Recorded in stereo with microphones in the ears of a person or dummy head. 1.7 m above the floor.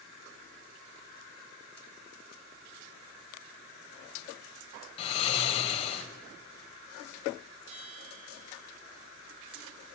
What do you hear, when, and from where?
5.0 s snoring: 35° left (ahead or behind), 3 m
7.7 s a bell: 35° right (ahead or behind), 4.5 m